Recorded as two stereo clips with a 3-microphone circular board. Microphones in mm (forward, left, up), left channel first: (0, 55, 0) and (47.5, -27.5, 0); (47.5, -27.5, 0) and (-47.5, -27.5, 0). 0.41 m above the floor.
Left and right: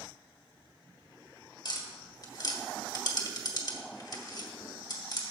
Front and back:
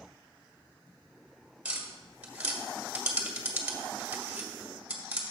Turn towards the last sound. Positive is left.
turn(degrees=110)